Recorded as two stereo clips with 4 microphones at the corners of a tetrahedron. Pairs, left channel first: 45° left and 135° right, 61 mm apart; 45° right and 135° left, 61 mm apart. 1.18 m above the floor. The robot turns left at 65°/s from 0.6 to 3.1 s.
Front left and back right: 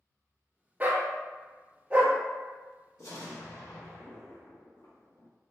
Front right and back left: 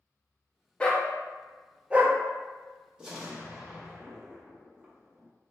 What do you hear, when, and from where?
0.8 s a dog barking: 105° right, 0.6 m; by 2.2 s 170° left, 0.6 m
3.0 s an explosion: 60° left, 0.9 m; by 5.3 s 55° left, 0.9 m